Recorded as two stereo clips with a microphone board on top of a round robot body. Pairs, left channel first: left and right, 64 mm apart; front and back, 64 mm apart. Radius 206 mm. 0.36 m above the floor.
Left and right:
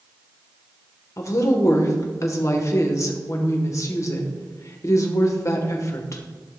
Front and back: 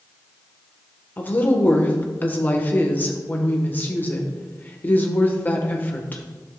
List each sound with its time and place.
1.2 s a woman speaking: 55° left, 1.7 m